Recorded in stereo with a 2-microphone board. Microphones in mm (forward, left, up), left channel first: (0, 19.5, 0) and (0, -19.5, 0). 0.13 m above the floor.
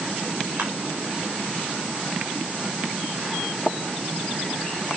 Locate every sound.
0.6 s crushing: 55° right (ahead or behind), 5.5 m